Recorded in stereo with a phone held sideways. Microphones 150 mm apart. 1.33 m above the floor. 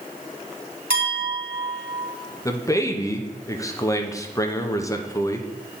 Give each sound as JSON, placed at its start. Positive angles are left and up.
{"t": 0.9, "sound": "a clink", "side_deg": -75, "distance_m": 2.5}
{"t": 2.5, "sound": "a man speaking", "side_deg": 20, "distance_m": 0.7}